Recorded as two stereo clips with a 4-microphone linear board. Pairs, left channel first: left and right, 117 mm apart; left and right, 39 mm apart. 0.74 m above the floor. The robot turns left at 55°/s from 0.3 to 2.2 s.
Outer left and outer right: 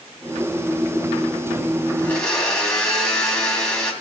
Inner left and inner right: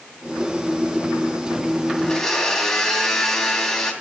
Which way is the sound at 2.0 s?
20° left (ahead or behind).